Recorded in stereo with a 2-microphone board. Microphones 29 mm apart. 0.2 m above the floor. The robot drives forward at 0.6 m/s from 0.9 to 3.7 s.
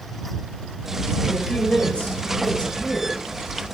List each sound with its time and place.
1.3 s a woman speaking: 50° left (ahead or behind), 4.5 m; by 3.2 s 40° left (ahead or behind), 5 m